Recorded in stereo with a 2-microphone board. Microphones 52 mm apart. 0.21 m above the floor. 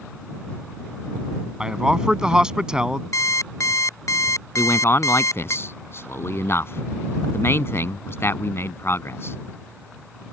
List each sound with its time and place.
1.6 s a man speaking: 15° right (ahead or behind)
3.1 s an alarm clock: 70° left (ahead or behind)
4.6 s a man speaking: 50° left (ahead or behind)